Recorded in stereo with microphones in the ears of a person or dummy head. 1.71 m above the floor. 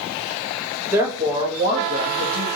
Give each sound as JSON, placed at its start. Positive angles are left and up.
{"t": 0.9, "sound": "a woman speaking", "side_deg": -15, "distance_m": 1.0}